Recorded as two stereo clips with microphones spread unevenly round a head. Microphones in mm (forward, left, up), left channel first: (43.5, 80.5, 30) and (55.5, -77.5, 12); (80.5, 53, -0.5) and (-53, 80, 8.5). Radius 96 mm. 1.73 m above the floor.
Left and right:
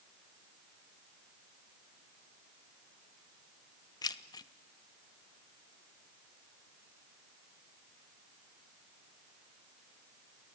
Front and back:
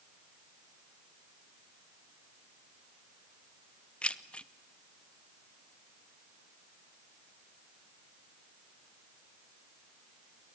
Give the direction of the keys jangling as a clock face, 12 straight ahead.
10 o'clock.